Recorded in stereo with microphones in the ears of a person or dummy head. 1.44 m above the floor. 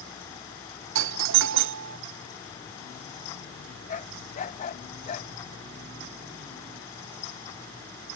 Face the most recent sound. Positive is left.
turn(degrees=45)  # may be behind; listen again after turning